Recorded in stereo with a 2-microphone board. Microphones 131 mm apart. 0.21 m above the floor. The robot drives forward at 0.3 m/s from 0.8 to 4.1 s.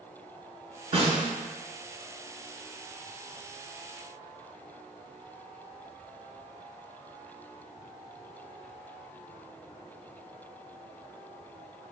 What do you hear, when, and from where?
0.9 s a snare drum: 45° right (ahead or behind), 0.7 m; by 1.3 s 40° right (ahead or behind), 0.8 m